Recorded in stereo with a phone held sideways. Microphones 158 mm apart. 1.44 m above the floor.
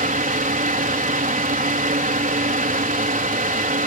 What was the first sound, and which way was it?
A fan, 65° right (ahead or behind).